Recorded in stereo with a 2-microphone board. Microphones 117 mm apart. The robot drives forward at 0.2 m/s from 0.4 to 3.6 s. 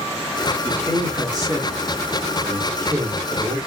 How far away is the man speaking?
About 1.3 m.